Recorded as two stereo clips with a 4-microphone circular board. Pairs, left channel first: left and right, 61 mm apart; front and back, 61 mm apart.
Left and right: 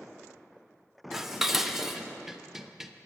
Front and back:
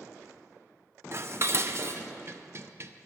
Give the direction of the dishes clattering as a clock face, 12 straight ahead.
6 o'clock.